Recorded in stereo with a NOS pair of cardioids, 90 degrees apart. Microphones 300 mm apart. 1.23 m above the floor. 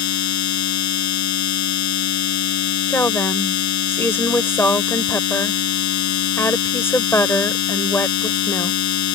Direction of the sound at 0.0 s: 70° left.